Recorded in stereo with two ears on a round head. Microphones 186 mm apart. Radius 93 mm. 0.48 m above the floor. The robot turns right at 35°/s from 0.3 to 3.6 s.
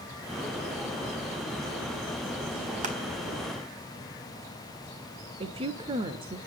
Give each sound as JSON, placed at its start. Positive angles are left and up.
{"t": 2.8, "sound": "crushing", "side_deg": -35, "distance_m": 4.0}
{"t": 5.4, "sound": "a woman speaking", "side_deg": -25, "distance_m": 1.4}